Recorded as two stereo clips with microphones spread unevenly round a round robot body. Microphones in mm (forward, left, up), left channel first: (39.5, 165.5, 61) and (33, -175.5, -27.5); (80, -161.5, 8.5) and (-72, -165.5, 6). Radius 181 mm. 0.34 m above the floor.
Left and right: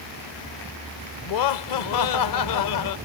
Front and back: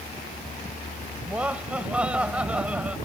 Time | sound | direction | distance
1.2 | laughter | 100° left | ?